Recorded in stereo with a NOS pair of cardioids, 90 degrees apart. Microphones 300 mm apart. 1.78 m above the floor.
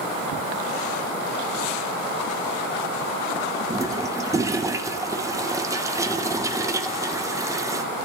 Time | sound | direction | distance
3.7 | a toilet flushing | 10° right | 0.6 m